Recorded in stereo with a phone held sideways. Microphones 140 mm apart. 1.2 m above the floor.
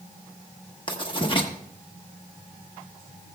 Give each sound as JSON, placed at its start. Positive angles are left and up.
{"t": 0.9, "sound": "writing", "side_deg": 35, "distance_m": 1.3}